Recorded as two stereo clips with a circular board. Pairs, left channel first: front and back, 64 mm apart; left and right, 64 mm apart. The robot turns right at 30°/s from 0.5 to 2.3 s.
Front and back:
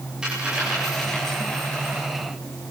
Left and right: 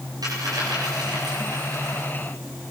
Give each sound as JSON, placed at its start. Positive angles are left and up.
{"t": 0.2, "sound": "a dropped coin", "azimuth_deg": -100, "distance_m": 9.5}